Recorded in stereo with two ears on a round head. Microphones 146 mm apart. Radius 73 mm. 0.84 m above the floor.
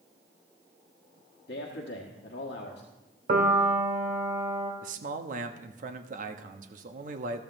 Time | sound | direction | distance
1.5 | a man speaking | 70° left (ahead or behind) | 1.6 m
3.3 | a piano | 50° right (ahead or behind) | 1.5 m
4.8 | a man speaking | 50° right (ahead or behind) | 0.9 m